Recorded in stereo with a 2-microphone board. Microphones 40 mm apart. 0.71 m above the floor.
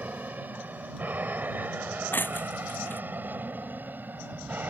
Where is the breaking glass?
60° left (ahead or behind).